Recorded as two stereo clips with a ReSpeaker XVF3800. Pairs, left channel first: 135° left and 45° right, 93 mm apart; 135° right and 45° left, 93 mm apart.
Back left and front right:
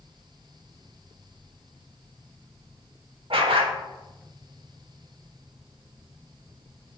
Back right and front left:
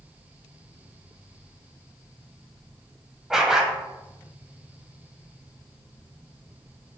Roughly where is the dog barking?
Ahead right.